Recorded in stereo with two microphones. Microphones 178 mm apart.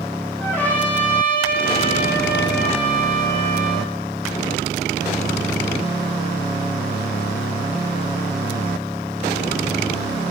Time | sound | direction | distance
0.4 | a trumpet | 10° left (ahead or behind) | 10 m